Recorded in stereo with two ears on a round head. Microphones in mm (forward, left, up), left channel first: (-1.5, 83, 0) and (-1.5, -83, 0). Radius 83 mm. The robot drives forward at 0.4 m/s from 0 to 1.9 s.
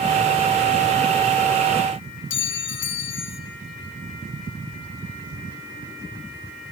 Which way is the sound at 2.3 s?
75° left (ahead or behind).